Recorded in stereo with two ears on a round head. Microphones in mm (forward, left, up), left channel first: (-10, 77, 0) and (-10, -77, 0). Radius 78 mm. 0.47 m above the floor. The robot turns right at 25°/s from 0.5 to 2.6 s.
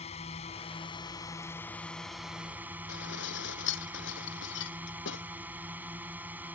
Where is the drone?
140° left; by 6.5 s 170° right.